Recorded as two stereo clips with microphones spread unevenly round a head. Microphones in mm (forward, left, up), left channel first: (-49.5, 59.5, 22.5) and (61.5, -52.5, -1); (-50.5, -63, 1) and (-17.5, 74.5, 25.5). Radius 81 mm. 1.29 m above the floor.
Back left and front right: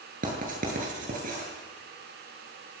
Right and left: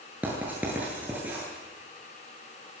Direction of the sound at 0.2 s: 5° right.